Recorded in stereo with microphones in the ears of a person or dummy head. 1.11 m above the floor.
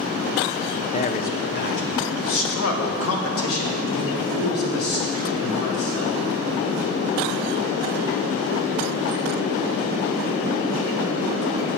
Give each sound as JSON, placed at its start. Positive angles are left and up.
{"t": 0.9, "sound": "a man speaking", "side_deg": 30, "distance_m": 0.6}